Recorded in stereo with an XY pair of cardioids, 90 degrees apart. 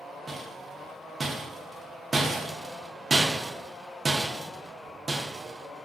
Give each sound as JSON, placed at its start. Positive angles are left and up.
{"t": 0.3, "sound": "a rattle", "azimuth_deg": -30, "distance_m": 0.5}